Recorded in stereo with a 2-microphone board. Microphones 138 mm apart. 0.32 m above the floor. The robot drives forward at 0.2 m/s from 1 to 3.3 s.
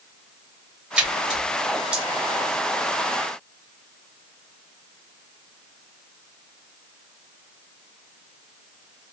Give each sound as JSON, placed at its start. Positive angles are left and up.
{"t": 1.0, "sound": "a splash", "side_deg": -5, "distance_m": 0.9}